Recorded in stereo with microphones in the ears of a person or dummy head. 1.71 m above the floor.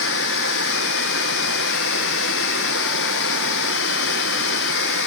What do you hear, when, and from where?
0.0 s running water: 65° left (ahead or behind), 1.1 m